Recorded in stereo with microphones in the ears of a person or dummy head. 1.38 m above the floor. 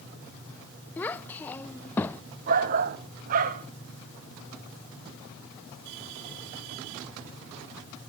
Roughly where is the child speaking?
Centre.